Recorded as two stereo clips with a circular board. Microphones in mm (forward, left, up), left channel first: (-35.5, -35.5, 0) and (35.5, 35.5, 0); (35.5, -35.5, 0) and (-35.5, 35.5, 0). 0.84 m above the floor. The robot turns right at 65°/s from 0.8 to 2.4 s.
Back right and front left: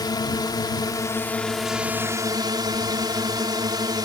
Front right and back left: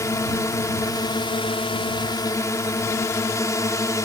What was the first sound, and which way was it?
A drone, 100° right.